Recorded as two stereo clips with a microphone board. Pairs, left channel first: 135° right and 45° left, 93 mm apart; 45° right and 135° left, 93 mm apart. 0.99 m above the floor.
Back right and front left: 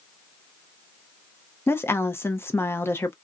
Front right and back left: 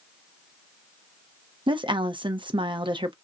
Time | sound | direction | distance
1.7 | a woman speaking | 160° left | 0.6 m